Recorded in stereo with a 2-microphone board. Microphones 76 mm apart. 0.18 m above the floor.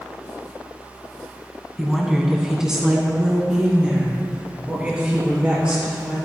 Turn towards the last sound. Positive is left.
turn(degrees=-15)  # may be behind; listen again after turning